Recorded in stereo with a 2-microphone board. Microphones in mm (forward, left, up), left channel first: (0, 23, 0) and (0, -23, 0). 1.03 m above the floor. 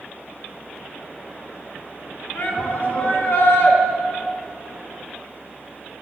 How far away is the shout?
About 1.2 m.